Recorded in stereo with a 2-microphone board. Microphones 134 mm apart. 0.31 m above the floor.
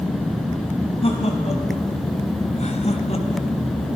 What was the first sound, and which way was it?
Laughter, 45° left (ahead or behind).